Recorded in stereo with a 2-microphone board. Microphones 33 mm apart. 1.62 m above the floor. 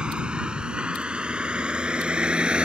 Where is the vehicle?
25° right (ahead or behind); by 2.7 s 30° right (ahead or behind).